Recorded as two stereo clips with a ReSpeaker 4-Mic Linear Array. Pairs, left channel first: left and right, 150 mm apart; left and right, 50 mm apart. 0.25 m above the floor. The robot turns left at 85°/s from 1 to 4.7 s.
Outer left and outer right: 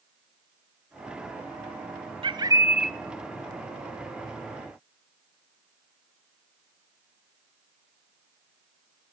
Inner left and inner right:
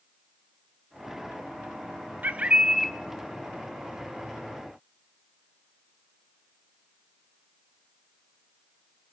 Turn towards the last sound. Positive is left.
turn(degrees=30)